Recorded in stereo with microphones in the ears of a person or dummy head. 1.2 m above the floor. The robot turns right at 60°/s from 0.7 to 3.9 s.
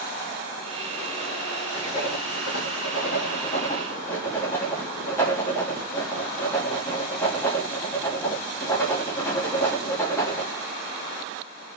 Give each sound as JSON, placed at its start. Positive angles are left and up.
{"t": 1.7, "sound": "writing", "azimuth_deg": 35, "distance_m": 2.0}